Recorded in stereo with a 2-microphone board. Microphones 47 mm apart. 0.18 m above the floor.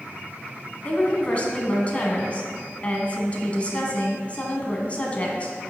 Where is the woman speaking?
30° left (ahead or behind), 1.3 m.